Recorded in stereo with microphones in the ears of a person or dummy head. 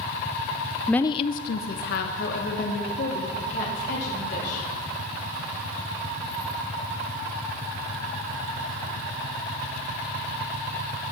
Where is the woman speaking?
5° right (ahead or behind), 0.5 m; by 4.7 s 65° left (ahead or behind), 4.5 m.